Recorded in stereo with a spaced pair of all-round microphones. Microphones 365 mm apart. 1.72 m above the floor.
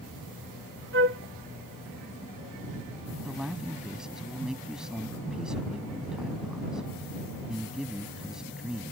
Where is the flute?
35° right (ahead or behind).